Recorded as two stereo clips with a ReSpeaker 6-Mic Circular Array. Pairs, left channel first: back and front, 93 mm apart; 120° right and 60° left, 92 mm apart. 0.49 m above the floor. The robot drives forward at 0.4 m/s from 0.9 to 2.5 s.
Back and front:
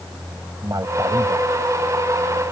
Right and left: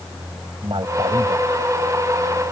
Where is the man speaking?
45° left; by 1.5 s 50° left.